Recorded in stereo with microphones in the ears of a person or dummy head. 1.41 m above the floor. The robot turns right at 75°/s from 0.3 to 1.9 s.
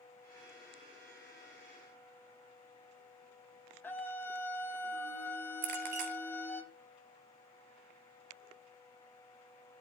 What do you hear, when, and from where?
3.8 s a scream: 10° left (ahead or behind), 1.5 m
5.6 s a clink: 55° right (ahead or behind), 1.2 m